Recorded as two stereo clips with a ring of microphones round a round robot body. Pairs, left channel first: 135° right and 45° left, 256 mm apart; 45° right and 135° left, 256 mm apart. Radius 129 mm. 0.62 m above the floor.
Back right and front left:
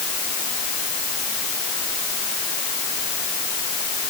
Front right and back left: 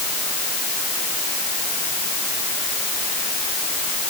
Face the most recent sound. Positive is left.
No sound to turn to.